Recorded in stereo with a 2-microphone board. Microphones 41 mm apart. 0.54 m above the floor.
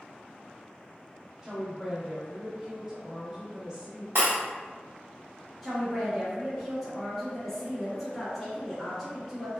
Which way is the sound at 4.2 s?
65° right (ahead or behind).